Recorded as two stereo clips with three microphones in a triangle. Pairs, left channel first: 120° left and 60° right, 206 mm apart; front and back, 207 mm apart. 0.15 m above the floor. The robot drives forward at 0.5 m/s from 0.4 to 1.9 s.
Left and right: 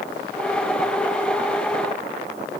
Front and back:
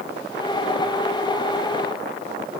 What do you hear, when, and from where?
Only background noise.